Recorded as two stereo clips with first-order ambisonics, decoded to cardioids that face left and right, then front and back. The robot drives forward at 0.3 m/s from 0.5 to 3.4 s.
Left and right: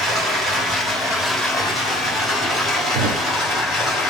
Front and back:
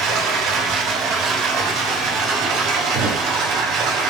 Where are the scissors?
I don't hear scissors.